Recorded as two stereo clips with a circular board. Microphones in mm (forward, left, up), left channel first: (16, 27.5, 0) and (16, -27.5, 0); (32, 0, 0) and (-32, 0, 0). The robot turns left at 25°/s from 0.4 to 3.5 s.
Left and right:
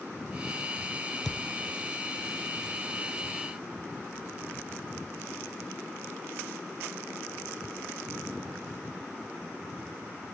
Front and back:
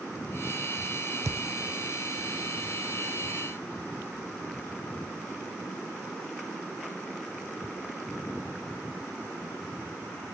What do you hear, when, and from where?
1.2 s a thud: 175° left, 0.7 m; by 1.5 s 170° left, 0.7 m